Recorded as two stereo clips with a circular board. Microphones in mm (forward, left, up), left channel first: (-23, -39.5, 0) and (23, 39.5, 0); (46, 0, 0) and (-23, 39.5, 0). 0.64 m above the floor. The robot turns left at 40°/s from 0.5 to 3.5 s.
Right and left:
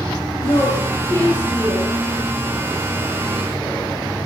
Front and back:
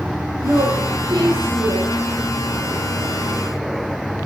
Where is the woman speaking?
155° right, 8 m; by 1.9 s 145° left, 8 m.